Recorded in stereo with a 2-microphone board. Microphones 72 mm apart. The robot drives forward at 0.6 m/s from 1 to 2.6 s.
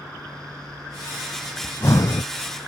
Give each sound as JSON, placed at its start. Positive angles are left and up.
{"t": 1.6, "sound": "breathing", "side_deg": 35}